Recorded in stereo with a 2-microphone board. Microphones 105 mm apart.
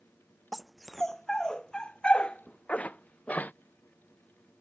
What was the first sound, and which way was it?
A dog barking, centre (ahead or behind).